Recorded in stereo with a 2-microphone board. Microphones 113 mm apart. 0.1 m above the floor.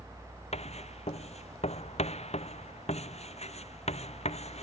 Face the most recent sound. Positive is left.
turn(degrees=75)  # may be behind; listen again after turning